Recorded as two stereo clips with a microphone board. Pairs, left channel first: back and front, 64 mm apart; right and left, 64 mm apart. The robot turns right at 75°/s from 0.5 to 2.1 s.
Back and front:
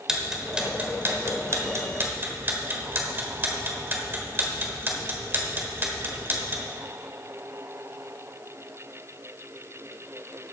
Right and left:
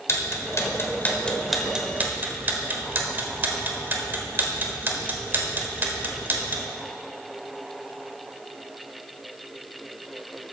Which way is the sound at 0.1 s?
75° right.